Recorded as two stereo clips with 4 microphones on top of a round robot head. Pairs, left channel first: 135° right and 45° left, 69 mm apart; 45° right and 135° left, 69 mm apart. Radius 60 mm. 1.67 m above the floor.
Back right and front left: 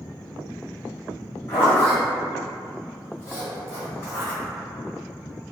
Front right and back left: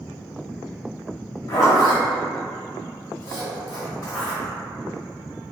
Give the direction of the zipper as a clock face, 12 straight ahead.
3 o'clock.